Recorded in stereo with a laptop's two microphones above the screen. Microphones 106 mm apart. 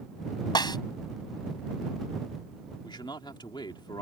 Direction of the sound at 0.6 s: 40° left (ahead or behind).